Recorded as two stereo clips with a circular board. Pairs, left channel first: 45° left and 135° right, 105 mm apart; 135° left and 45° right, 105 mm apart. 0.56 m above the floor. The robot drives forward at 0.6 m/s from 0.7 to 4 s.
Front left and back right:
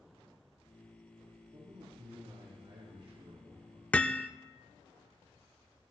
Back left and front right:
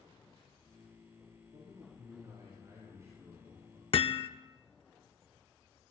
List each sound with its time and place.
1.5 s a man speaking: 95° right, 5.5 m; by 3.8 s 110° right, 5.5 m
3.9 s hammering: 120° left, 0.6 m; by 4.3 s 125° left, 0.7 m